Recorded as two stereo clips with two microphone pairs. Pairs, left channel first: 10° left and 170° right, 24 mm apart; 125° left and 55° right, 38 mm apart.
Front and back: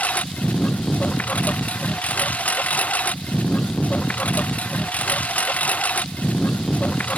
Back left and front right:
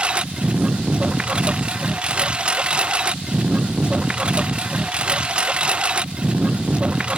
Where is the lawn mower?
10° left.